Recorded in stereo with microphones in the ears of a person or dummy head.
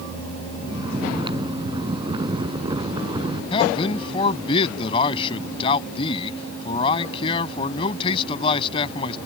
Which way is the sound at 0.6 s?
25° right (ahead or behind).